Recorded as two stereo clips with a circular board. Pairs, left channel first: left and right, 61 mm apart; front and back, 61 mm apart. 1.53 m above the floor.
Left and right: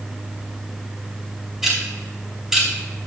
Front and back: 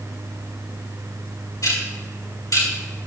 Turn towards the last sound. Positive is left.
turn(degrees=-10)